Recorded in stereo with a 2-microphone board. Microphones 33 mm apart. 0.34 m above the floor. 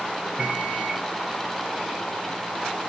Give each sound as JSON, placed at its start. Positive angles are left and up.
{"t": 0.4, "sound": "a microwave", "side_deg": -20, "distance_m": 0.9}